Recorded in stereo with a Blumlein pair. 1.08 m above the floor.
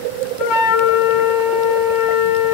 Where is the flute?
35° left, 3.5 m.